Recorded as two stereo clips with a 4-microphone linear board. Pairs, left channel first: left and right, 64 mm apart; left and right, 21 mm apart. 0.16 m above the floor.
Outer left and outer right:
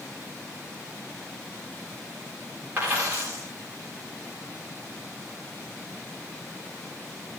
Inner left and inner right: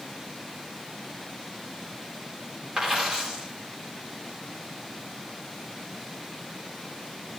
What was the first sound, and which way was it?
A dropped coin, 35° right (ahead or behind).